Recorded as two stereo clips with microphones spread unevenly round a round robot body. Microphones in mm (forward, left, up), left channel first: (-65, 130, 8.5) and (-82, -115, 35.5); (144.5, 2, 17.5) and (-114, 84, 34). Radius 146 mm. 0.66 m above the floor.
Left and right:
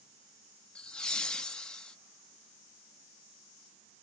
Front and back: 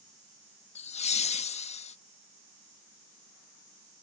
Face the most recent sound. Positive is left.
turn(degrees=15)